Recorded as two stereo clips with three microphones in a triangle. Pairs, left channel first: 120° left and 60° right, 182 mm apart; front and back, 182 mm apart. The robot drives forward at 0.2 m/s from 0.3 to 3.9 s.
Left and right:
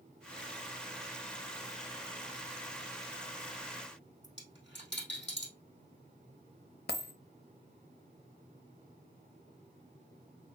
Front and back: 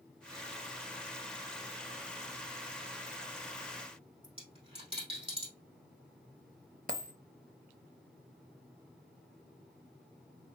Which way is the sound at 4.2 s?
120° left.